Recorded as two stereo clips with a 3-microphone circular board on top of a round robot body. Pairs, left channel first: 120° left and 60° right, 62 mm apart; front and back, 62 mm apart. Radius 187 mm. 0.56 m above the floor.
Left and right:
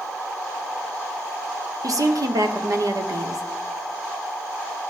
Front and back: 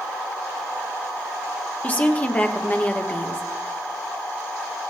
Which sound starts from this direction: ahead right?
A woman speaking, at 1.8 s.